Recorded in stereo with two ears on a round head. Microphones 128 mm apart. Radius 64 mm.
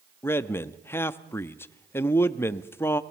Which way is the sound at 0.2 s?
15° left (ahead or behind).